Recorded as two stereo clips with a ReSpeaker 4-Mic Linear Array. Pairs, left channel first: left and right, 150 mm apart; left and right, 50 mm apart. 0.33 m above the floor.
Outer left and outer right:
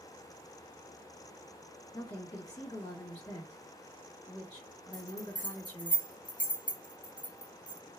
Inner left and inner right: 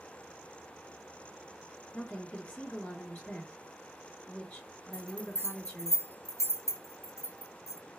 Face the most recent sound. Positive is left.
turn(degrees=65)  # may be behind; listen again after turning